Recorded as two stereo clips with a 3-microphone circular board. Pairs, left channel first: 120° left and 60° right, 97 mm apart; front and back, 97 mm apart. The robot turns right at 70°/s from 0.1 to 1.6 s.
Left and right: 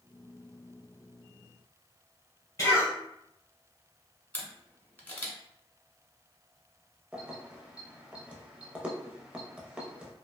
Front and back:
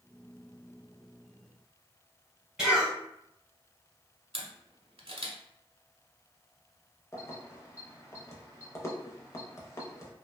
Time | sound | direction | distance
2.6 | a cough | 105° left | 1.8 m
4.3 | a camera shutter | 165° right | 0.7 m
7.1 | keys jangling | 5° left | 0.6 m